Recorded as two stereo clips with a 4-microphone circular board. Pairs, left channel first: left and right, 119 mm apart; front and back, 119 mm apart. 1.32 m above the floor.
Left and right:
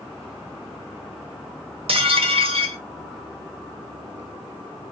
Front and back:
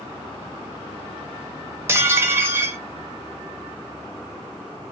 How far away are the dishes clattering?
About 0.8 m.